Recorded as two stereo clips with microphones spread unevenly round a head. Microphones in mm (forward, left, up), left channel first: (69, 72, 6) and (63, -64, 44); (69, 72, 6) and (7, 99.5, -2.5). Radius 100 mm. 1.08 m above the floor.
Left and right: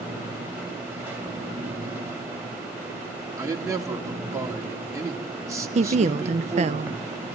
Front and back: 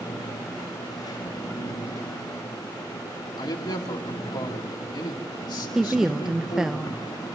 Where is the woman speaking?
130° right, 0.6 m.